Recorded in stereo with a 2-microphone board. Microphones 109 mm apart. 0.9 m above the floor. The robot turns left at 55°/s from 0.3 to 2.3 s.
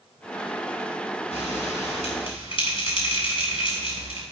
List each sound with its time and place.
1.3 s a bell: 75° left (ahead or behind), 5.5 m; by 4.2 s 50° left (ahead or behind), 5.5 m